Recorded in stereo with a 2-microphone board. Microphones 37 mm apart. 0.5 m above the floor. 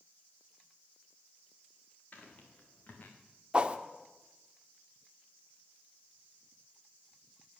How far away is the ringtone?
I don't hear a ringtone.